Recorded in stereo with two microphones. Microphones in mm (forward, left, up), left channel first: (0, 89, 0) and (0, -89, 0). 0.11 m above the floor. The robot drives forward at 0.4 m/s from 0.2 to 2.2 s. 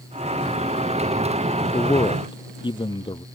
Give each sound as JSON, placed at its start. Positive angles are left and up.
{"t": 1.6, "sound": "a man speaking", "side_deg": 25}